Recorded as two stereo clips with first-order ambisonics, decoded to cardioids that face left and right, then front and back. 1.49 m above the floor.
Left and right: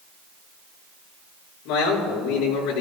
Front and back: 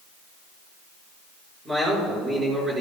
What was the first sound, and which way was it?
A man speaking, 110° left.